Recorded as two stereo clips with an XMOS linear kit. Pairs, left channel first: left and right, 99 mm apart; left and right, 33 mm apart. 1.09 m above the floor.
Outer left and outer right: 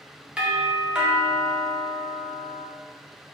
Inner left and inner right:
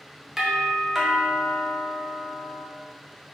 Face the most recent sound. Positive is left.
turn(degrees=-10)  # may be behind; listen again after turning